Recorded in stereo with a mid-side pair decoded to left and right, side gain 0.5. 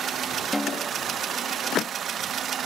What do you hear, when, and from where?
0.5 s a snare drum: 10° left